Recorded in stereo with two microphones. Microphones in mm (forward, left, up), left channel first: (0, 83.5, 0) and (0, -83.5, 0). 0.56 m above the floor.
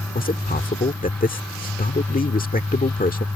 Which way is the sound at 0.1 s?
55° left (ahead or behind).